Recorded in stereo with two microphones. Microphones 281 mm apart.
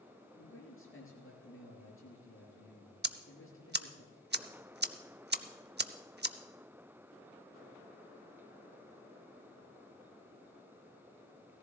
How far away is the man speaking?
About 5 m.